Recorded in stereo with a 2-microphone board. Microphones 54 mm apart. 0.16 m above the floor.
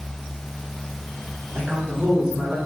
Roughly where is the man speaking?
Right.